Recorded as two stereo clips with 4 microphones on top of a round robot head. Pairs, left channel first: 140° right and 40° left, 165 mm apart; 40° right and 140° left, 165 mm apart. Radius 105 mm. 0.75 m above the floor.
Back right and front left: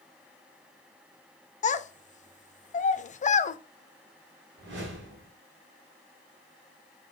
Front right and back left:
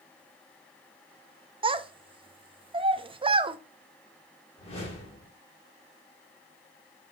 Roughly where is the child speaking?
Behind.